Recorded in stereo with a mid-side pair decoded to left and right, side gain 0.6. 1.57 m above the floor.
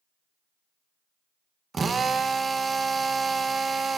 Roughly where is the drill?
Ahead right.